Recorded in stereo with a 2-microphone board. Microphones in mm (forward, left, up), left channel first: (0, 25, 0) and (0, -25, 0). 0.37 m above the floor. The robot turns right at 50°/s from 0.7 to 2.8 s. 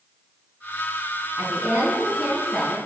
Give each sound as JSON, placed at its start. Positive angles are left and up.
{"t": 1.4, "sound": "a woman speaking", "azimuth_deg": -70, "distance_m": 3.5}